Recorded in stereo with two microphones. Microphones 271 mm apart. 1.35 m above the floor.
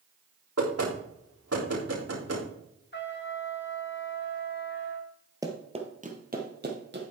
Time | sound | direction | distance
0.6 | knocking | 65° right (ahead or behind) | 3.5 m
2.9 | a trumpet | 40° left (ahead or behind) | 1.4 m
5.4 | running footsteps | 15° right (ahead or behind) | 1.7 m